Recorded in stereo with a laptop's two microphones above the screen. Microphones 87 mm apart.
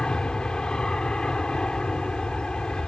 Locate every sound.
0.0 s an aircraft: 10° left (ahead or behind)